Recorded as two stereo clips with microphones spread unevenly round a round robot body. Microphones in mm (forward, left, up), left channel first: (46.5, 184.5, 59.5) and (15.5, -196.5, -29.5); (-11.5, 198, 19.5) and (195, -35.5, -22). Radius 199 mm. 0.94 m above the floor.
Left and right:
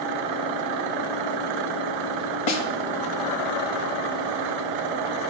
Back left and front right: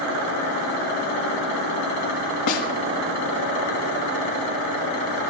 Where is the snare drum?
110° left, 1.9 m.